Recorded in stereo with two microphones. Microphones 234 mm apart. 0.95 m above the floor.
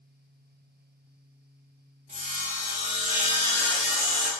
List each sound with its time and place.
2.1 s sawing: 30° right (ahead or behind), 0.9 m